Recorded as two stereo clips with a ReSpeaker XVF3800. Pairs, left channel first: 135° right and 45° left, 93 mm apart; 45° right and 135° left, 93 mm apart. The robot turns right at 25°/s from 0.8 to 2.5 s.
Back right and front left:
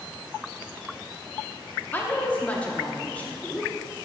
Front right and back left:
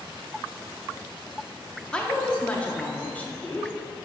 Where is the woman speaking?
105° right, 0.8 m; by 3.7 s 90° right, 0.8 m.